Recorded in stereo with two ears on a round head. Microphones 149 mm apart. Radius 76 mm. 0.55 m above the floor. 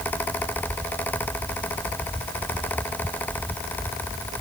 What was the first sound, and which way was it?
Only background noise.